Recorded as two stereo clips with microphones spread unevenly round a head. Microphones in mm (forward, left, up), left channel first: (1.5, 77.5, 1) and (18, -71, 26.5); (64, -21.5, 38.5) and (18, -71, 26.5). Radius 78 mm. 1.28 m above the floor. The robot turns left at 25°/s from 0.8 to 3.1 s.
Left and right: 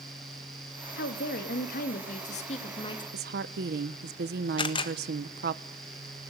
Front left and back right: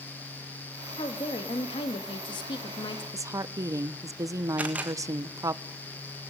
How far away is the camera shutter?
About 1.6 m.